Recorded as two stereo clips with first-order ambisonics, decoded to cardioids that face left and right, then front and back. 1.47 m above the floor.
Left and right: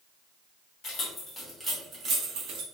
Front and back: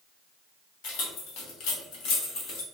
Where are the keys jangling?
25° left, 1.5 m; by 2.6 s 50° right, 1.5 m.